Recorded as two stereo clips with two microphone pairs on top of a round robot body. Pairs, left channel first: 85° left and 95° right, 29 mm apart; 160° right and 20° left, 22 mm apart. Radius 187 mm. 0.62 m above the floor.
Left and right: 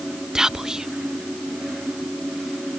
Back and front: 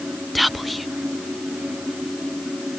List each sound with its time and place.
0.3 s whispering: 50° right